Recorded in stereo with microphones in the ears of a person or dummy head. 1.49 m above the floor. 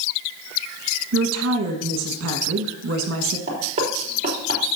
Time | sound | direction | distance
1.1 | a woman speaking | 80° right | 1.5 m
3.5 | knocking | 40° right (ahead or behind) | 3.5 m